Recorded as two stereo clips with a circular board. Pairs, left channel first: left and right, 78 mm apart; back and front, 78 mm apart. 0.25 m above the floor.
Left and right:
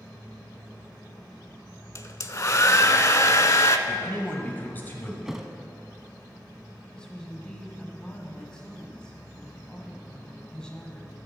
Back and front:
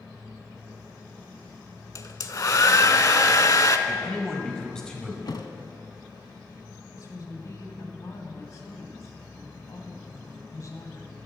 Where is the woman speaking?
165° left, 1.5 m.